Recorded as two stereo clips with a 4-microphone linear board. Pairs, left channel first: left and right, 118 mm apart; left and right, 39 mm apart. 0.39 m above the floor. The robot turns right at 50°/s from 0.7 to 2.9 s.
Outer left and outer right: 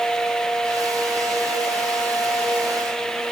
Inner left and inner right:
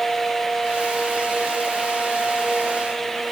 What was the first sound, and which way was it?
Only background noise.